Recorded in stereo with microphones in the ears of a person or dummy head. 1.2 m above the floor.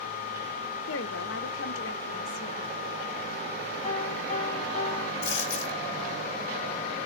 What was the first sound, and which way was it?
A woman speaking, 65° left (ahead or behind).